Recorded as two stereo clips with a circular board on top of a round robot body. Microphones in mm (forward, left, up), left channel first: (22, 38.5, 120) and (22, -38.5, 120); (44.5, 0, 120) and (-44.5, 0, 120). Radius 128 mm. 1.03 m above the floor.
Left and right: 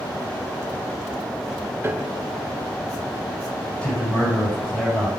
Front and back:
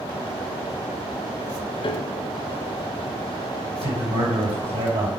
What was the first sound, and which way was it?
A piano, 25° right.